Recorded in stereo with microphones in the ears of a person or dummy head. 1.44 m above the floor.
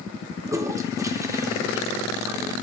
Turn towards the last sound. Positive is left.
turn(degrees=-20)  # may be behind; listen again after turning